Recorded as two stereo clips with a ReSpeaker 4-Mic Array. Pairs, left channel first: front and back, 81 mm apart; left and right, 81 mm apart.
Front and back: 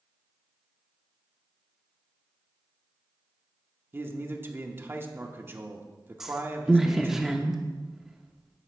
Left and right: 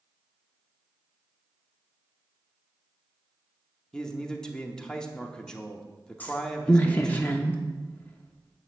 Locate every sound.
3.9 s a man speaking: 160° left, 0.8 m
6.2 s a woman speaking: 100° left, 0.6 m